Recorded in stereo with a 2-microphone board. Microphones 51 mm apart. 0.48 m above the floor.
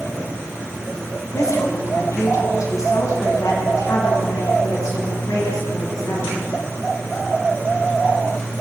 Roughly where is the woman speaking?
Left.